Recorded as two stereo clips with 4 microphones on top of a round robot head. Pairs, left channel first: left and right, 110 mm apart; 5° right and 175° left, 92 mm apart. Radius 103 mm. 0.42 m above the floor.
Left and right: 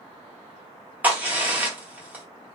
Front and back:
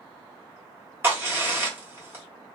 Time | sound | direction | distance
1.0 | a crack | 150° right | 1.4 m